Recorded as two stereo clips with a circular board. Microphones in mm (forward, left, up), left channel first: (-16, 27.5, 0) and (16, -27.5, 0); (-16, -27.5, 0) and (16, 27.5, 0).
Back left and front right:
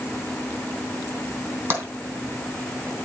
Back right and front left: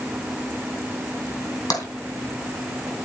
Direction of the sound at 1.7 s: 120° right.